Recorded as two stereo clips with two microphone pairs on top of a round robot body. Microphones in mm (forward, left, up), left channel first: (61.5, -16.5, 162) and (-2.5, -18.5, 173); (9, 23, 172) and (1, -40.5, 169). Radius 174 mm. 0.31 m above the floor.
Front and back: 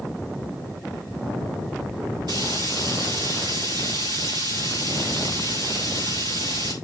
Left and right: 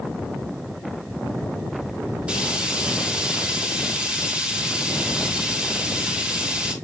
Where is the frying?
165° right, 5.5 m.